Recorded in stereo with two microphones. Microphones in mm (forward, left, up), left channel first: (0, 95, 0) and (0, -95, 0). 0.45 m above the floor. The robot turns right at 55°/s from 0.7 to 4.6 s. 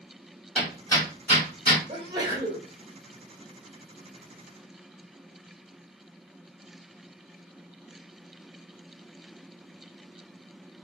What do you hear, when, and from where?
0.6 s hammering: 5° left (ahead or behind), 2 m; by 1.8 s 60° left (ahead or behind), 2 m
1.9 s a sneeze: 45° right, 1.4 m; by 2.7 s straight ahead, 1.4 m